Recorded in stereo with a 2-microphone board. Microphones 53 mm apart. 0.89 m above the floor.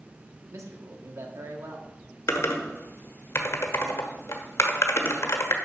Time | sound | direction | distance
0.5 | a man speaking | 65° right (ahead or behind) | 1.5 m
2.3 | typing on a keyboard | 70° left (ahead or behind) | 1.1 m